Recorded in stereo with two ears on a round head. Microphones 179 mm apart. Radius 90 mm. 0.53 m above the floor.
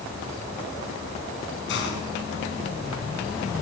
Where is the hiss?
65° left (ahead or behind), 6.5 m.